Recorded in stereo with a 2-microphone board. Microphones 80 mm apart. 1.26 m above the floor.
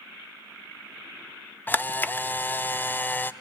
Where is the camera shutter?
25° left (ahead or behind), 0.8 m.